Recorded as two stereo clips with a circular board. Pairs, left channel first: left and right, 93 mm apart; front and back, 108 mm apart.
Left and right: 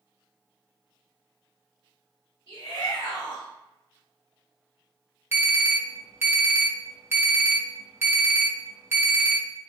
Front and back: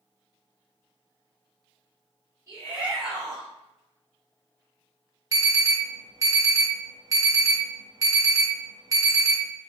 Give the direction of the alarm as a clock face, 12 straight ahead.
5 o'clock.